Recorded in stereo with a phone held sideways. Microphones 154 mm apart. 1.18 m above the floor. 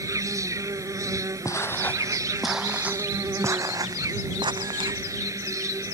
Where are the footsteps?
20° left (ahead or behind); by 5.0 s 35° right (ahead or behind).